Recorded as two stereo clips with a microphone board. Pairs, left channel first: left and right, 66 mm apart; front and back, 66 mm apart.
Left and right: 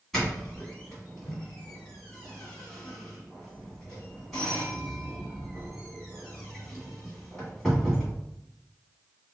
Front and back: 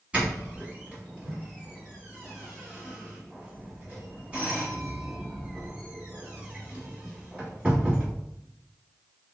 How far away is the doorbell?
About 1.5 m.